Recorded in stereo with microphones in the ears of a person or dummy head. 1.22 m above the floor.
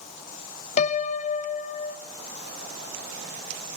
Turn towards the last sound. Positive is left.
turn(degrees=40)  # may be behind; listen again after turning